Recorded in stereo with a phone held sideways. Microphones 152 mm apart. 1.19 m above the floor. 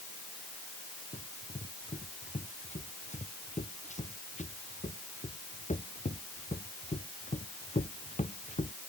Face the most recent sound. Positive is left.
turn(degrees=50)  # may be behind; listen again after turning